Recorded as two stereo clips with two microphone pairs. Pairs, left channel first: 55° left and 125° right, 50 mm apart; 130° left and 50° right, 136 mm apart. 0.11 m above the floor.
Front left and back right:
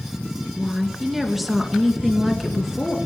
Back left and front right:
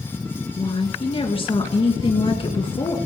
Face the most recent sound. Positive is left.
turn(degrees=150)